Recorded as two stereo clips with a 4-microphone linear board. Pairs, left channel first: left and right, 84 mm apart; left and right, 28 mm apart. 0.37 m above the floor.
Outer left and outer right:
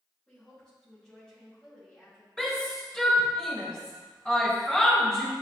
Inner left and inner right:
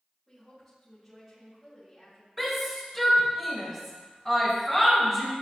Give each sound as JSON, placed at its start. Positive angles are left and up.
{"t": 0.3, "sound": "a woman speaking", "side_deg": 5, "distance_m": 3.0}
{"t": 2.4, "sound": "a shout", "side_deg": 10, "distance_m": 1.5}